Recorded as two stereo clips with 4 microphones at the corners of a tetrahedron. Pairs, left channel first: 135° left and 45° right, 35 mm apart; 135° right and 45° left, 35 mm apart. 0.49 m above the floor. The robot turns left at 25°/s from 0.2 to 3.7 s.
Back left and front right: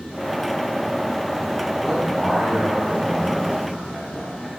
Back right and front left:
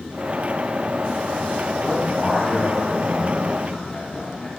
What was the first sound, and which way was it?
A man speaking, 105° right.